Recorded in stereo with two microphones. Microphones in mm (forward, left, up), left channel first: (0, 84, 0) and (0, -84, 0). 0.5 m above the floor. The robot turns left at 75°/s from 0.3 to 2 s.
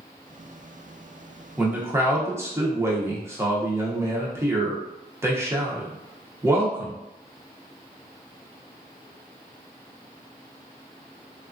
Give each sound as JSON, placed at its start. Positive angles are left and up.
{"t": 1.6, "sound": "a man speaking", "side_deg": -5, "distance_m": 0.7}